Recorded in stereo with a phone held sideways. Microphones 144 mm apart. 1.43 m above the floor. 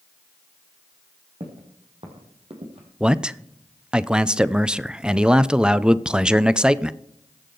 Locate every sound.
1.4 s footsteps: 45° right (ahead or behind), 3.5 m; by 2.9 s 50° right (ahead or behind), 2.5 m
3.0 s a man speaking: 5° right (ahead or behind), 0.5 m